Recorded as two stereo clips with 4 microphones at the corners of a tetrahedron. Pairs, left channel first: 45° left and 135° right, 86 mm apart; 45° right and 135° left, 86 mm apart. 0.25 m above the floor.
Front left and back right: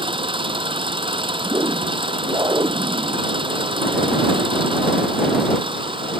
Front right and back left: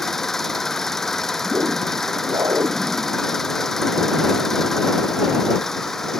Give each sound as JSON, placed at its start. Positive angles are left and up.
{"t": 0.0, "sound": "an engine running", "azimuth_deg": -130}
{"t": 1.4, "sound": "a whoosh", "azimuth_deg": 175}